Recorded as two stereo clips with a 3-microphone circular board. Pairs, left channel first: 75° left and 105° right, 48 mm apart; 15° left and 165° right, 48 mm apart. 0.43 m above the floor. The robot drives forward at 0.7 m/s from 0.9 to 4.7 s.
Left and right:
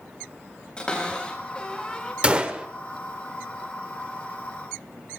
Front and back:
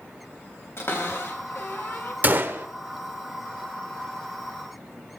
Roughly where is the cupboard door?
Ahead.